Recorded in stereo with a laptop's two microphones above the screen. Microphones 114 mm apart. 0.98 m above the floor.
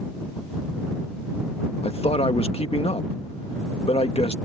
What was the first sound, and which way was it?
A man speaking, 60° left (ahead or behind).